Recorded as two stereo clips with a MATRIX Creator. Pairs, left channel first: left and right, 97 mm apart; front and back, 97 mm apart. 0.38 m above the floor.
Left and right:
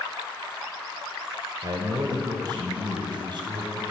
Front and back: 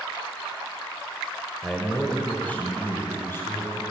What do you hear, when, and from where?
1.6 s a man speaking: 85° right, 1.7 m; by 3.8 s 60° right, 3.5 m